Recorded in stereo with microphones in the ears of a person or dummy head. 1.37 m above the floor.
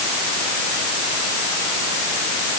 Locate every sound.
Only background noise.